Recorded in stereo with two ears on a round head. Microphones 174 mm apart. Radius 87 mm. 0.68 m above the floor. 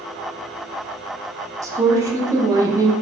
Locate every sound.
1.6 s a woman speaking: 15° right (ahead or behind), 0.8 m